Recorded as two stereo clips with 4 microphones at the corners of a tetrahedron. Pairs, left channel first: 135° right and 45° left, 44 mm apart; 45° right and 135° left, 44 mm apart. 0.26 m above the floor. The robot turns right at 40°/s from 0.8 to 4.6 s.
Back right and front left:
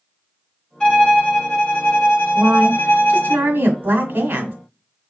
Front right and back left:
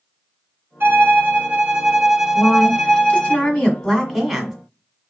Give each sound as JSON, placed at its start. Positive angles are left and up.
{"t": 0.8, "sound": "a violin", "azimuth_deg": 155, "distance_m": 1.3}
{"t": 2.4, "sound": "a woman speaking", "azimuth_deg": -30, "distance_m": 1.6}